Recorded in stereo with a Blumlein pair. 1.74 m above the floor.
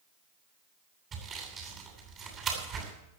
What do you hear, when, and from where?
1.1 s sawing: 25° right, 9 m